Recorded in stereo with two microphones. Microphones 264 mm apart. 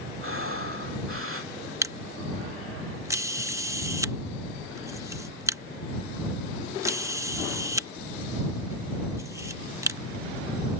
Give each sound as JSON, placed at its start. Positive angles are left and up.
{"t": 0.2, "sound": "breathing", "side_deg": -55}
{"t": 1.8, "sound": "a camera shutter", "side_deg": -10}